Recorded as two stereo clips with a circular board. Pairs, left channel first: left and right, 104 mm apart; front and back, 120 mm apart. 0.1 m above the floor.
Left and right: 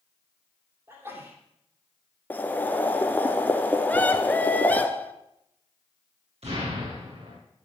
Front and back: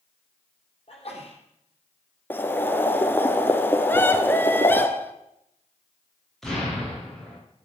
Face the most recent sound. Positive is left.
turn(degrees=-85)